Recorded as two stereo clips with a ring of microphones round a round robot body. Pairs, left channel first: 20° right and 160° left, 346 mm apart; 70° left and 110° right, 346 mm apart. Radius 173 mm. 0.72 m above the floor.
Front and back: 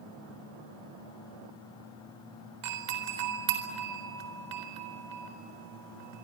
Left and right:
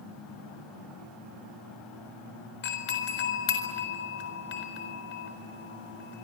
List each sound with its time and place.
2.6 s a doorbell: 125° left, 4 m